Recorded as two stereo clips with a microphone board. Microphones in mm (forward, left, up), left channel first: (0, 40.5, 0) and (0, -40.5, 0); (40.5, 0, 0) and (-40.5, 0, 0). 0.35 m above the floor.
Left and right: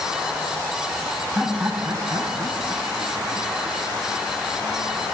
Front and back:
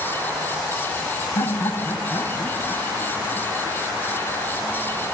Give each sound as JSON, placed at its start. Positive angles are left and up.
{"t": 1.4, "sound": "laughter", "azimuth_deg": -10, "distance_m": 1.7}